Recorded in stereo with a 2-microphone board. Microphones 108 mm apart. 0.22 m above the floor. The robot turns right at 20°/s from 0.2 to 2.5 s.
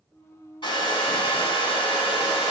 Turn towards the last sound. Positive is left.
turn(degrees=105)